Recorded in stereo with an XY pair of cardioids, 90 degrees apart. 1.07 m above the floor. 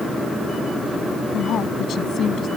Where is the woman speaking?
70° left.